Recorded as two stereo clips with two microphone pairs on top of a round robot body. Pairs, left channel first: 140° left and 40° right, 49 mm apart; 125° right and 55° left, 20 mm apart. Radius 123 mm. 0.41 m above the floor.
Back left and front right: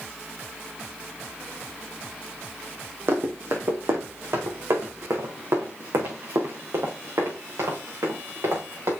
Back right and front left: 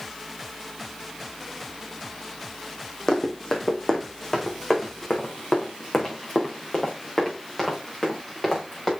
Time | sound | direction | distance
3.1 | running footsteps | 75° right | 2.0 m